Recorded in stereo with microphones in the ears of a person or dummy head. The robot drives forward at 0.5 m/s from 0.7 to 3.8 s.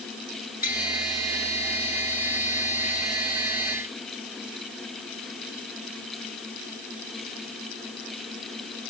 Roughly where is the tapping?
Left.